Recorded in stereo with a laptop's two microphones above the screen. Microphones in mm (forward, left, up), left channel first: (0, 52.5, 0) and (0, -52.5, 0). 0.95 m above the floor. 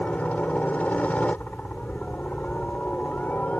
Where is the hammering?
No hammering in this recording.